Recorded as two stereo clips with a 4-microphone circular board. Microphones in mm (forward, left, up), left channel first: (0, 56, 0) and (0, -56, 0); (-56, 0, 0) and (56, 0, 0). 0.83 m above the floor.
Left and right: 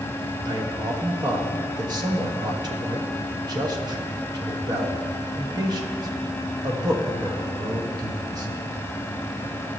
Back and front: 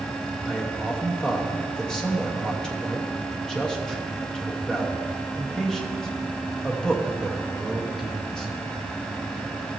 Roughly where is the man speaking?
Right.